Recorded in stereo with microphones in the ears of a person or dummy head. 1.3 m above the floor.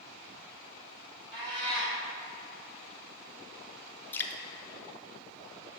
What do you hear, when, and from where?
1.3 s a cat meowing: 25° right (ahead or behind), 1.5 m
4.1 s dripping: 10° left (ahead or behind), 0.5 m